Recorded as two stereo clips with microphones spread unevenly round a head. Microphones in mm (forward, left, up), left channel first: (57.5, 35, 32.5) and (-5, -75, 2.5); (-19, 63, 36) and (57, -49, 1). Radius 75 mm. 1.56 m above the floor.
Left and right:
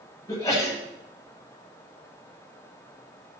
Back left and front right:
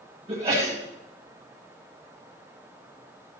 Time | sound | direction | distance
0.3 | a sneeze | 5° right | 8.5 m